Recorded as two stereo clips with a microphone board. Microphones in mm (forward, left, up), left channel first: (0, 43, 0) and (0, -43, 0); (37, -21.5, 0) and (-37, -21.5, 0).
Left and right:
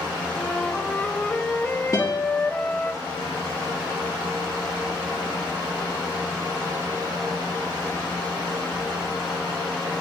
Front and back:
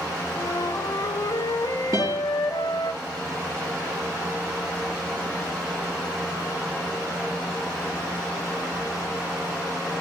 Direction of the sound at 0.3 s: 15° left.